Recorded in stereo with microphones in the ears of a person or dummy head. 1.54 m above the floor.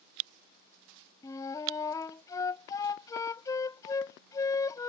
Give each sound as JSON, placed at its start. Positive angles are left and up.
{"t": 1.2, "sound": "a flute", "side_deg": 20}